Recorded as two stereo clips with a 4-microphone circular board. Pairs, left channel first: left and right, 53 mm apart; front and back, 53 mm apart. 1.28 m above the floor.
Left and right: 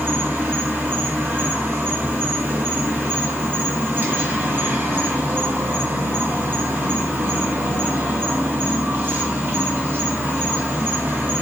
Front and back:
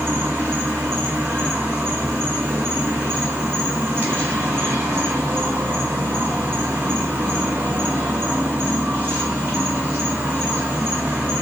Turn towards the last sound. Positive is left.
turn(degrees=-135)